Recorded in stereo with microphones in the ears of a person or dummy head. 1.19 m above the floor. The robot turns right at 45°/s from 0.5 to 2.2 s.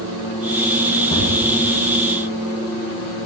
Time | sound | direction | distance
1.1 | a thud | 25° left (ahead or behind) | 2.5 m